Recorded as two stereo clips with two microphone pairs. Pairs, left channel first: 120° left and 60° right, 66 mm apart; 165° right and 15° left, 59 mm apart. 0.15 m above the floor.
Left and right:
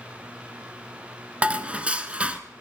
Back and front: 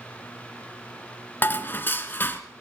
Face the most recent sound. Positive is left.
turn(degrees=-125)